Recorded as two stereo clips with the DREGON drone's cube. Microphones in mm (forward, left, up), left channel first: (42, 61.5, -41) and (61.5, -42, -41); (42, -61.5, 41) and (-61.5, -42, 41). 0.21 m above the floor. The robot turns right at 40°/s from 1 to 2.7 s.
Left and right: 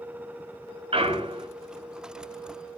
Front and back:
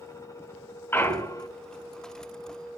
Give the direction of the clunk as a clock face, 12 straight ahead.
2 o'clock.